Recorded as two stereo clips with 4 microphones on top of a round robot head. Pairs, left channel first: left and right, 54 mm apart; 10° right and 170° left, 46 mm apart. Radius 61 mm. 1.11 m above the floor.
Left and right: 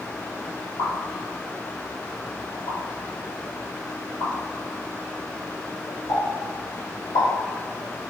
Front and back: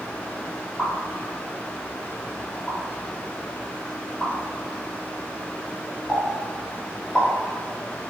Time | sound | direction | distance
0.8 | a pop | 65° left | 1.0 m